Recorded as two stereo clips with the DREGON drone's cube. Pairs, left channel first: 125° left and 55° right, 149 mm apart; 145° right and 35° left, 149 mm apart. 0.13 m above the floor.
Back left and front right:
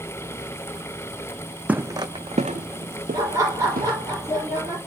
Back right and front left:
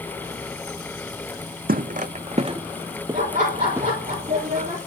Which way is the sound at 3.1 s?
10° left.